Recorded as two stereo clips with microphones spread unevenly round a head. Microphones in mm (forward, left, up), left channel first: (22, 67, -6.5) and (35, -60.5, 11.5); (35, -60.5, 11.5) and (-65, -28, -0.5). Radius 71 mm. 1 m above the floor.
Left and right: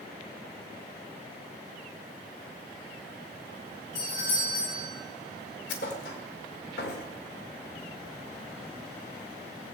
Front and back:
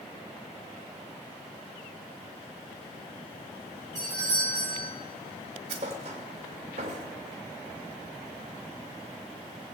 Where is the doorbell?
100° left, 5 m.